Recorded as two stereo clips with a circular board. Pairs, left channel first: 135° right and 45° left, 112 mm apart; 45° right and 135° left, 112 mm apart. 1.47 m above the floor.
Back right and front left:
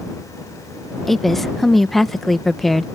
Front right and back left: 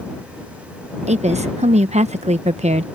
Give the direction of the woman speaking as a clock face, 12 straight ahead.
7 o'clock.